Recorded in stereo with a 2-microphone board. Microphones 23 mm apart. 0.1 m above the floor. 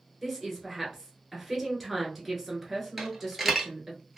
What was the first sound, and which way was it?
A woman speaking, 10° right (ahead or behind).